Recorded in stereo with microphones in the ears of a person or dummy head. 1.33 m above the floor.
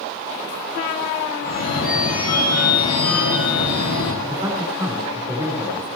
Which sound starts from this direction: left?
A phone ringing, at 1.4 s.